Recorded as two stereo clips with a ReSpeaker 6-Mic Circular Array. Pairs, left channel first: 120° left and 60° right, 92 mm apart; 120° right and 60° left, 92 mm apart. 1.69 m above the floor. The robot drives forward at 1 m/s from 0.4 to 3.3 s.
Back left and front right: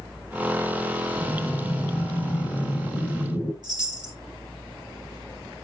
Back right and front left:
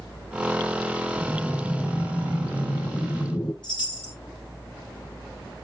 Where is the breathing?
125° left, 2.5 m; by 3.5 s 155° left, 3.5 m.